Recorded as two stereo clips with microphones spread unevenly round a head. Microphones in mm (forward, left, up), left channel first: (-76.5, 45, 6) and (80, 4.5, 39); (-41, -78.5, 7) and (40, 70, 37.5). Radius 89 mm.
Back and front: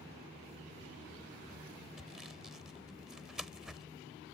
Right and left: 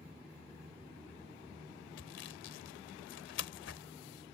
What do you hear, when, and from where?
2.0 s sawing: 95° right